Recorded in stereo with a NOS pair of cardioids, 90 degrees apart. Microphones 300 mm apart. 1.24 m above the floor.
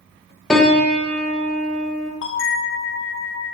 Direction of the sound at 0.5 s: 5° left.